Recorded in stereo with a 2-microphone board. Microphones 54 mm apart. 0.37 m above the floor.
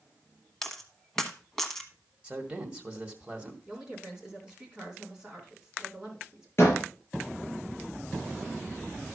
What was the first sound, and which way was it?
A dropped coin, 5° left (ahead or behind).